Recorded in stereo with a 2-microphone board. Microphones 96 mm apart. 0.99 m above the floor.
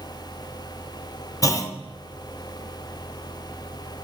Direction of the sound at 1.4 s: 35° left (ahead or behind).